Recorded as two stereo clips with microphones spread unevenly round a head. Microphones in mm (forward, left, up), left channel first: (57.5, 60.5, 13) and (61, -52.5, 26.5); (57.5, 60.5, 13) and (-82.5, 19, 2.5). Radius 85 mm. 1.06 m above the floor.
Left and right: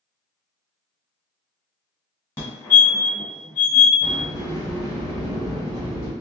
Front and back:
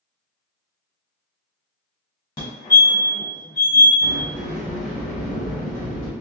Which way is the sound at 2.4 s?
55° left.